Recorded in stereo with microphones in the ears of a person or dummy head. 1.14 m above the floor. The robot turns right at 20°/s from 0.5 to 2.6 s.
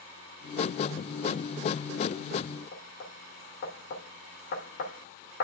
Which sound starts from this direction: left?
Knocking, at 2.7 s.